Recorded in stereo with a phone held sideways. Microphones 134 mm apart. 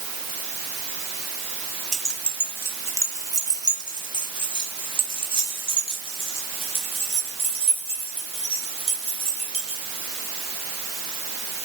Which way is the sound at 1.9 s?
5° left (ahead or behind).